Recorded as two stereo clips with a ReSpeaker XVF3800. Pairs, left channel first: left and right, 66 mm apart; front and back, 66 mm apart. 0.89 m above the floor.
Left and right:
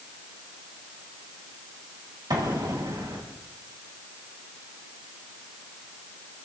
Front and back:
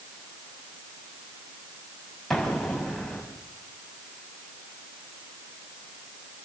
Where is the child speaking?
No child speaking in this recording.